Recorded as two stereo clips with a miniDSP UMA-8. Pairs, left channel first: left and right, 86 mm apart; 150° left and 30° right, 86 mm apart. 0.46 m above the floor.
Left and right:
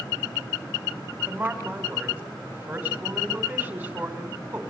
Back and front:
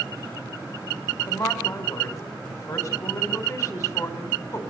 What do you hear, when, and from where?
1.3 s a woman speaking: 160° right, 3 m